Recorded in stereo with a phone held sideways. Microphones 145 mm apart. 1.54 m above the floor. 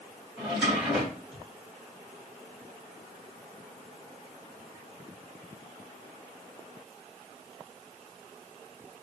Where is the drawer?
10° right (ahead or behind), 2.5 m.